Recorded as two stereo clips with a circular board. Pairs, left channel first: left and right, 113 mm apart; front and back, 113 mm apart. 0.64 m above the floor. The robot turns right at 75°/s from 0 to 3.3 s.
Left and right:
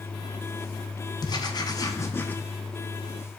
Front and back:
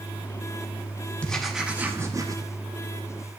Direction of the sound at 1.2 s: 70° left.